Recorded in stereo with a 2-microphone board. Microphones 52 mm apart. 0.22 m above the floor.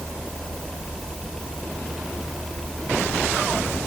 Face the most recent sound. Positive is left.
No sound to turn to.